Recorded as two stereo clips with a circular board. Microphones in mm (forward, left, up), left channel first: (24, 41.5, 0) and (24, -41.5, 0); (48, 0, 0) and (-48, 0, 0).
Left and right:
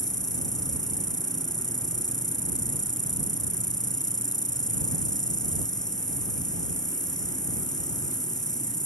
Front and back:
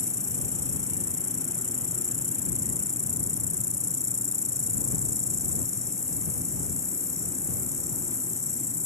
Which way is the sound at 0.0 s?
125° left.